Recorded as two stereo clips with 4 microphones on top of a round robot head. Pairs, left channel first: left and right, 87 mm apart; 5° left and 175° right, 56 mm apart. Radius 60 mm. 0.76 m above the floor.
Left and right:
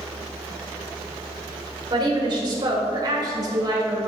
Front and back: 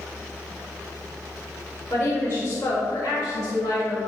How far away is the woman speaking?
About 2.5 m.